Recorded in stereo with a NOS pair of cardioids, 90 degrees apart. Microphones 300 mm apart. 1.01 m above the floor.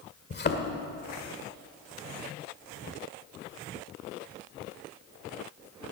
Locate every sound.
0.3 s a thud: 35° left, 1.7 m